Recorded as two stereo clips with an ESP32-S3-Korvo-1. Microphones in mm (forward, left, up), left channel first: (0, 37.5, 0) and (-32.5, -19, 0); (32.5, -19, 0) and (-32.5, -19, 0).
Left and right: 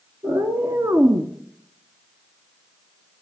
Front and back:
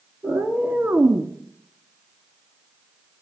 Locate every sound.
0.2 s a cat meowing: 130° right, 1.3 m; by 1.3 s 135° right, 0.6 m